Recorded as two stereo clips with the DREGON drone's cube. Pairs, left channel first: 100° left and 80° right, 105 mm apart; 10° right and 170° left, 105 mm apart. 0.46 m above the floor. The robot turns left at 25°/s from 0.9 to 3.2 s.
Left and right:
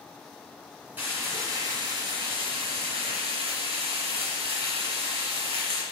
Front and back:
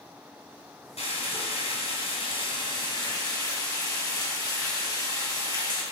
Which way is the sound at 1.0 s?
5° right.